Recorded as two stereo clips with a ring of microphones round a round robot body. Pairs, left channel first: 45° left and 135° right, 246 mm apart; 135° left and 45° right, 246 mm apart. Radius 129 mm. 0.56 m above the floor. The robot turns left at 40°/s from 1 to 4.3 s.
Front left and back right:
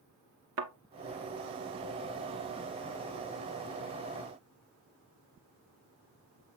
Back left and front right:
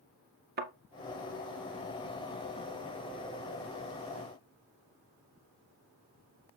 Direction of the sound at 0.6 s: 95° right.